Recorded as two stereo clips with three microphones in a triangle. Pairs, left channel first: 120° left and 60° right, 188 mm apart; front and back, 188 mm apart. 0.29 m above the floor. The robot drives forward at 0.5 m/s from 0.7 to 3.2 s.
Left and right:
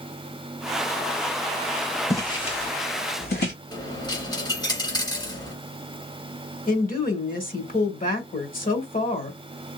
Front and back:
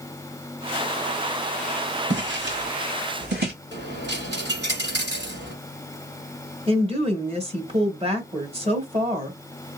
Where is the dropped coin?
175° right, 1.7 m.